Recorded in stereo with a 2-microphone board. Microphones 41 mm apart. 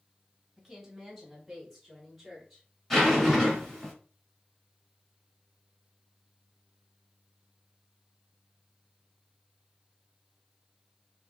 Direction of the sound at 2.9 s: 10° left (ahead or behind).